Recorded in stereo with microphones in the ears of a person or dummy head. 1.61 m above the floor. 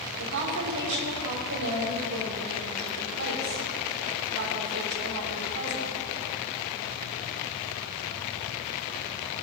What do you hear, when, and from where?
0.2 s a woman speaking: 60° right (ahead or behind), 4 m